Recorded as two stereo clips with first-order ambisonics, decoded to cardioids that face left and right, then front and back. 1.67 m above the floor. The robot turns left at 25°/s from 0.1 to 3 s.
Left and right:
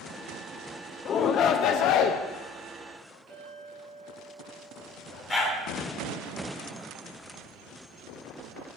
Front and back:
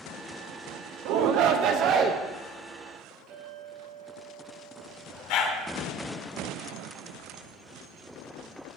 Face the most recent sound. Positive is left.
turn(degrees=20)